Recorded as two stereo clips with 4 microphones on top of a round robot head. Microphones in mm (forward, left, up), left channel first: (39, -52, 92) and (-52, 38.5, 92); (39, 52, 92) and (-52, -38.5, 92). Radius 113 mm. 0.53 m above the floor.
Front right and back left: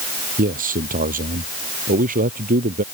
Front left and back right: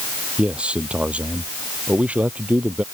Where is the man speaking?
145° left.